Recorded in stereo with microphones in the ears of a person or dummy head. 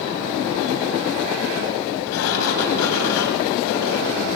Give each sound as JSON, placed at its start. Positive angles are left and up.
{"t": 2.1, "sound": "a sliding door", "side_deg": 85, "distance_m": 3.5}